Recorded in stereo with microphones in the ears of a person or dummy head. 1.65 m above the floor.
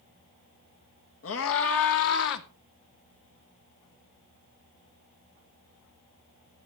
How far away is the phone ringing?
I don't hear a phone ringing.